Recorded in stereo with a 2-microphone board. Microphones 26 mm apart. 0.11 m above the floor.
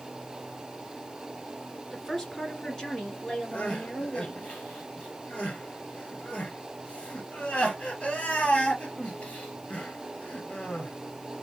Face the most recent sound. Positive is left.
turn(degrees=45)  # may be behind; listen again after turning